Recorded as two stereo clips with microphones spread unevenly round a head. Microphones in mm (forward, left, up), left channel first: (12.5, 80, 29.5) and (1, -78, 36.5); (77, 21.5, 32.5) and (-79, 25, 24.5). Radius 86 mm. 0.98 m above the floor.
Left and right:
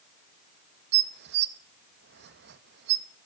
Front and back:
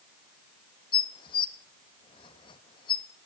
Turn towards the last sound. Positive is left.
turn(degrees=-65)